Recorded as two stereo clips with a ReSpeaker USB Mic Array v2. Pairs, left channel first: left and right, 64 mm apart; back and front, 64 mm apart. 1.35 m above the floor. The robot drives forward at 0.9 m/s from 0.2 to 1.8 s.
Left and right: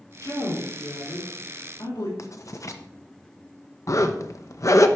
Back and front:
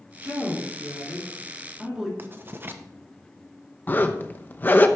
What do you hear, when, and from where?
0.2 s a woman speaking: 55° left, 4 m; by 2.1 s 75° left, 3.5 m
2.2 s writing: 55° left, 0.9 m
3.9 s a zipper: 120° left, 0.8 m